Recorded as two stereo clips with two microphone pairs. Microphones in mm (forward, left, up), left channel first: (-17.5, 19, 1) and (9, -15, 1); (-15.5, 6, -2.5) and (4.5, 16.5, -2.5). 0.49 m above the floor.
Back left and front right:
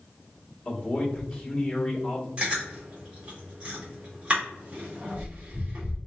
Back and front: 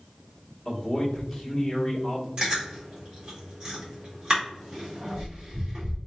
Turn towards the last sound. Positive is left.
turn(degrees=-5)